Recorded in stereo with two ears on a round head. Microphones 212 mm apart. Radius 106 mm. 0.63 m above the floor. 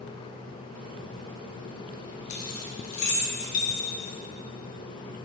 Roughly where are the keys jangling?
Left.